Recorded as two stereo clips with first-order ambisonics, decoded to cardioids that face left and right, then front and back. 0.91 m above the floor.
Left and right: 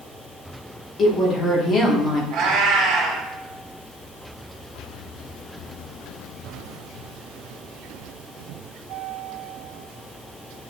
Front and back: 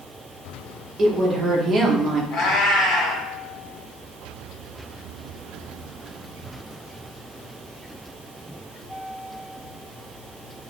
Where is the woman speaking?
130° left, 0.8 m.